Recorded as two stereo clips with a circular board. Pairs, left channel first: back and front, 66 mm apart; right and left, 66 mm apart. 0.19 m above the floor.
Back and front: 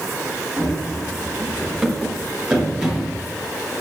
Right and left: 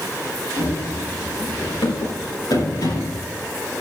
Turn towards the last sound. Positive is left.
turn(degrees=-80)